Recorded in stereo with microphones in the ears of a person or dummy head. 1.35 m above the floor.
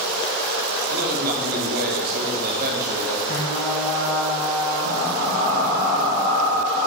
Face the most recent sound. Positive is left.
turn(degrees=55)  # may be behind; listen again after turning